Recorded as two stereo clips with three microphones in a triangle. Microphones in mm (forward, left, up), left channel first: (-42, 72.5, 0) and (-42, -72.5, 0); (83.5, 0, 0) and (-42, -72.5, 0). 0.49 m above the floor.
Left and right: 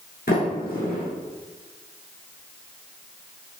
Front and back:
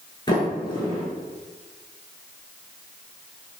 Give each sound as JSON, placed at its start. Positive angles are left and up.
{"t": 0.3, "sound": "a sliding door", "azimuth_deg": 90, "distance_m": 1.4}